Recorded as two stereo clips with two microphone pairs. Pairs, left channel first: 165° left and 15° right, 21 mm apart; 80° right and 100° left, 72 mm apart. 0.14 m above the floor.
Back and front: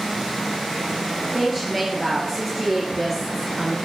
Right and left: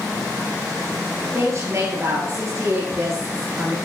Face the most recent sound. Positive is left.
turn(degrees=65)